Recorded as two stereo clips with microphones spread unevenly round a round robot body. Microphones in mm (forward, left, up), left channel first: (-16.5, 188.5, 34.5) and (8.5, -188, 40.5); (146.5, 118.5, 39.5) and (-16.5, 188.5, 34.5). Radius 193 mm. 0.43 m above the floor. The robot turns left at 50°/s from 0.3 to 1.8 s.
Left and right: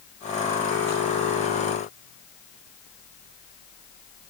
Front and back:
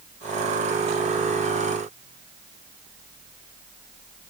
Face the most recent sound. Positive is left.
No sound to turn to.